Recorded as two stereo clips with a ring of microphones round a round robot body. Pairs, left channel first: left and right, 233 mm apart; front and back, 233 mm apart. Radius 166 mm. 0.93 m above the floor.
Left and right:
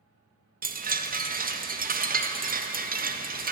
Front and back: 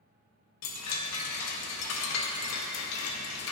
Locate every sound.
0.6 s a chime: 30° right, 0.6 m